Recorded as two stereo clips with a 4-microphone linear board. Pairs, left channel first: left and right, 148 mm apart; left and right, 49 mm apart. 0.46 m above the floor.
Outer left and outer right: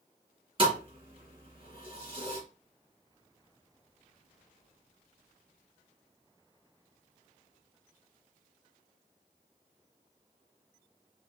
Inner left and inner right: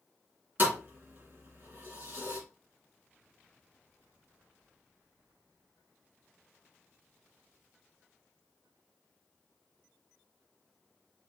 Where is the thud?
40° right (ahead or behind), 2.5 m.